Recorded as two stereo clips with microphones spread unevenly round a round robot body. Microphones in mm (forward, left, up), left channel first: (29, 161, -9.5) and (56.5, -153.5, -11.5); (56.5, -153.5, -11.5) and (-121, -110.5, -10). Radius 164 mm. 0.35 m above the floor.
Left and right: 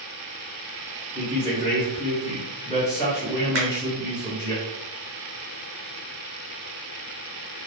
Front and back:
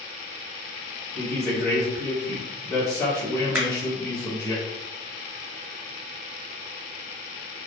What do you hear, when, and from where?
1.1 s a woman speaking: 40° left, 0.9 m
3.5 s a finger snap: 115° right, 1.3 m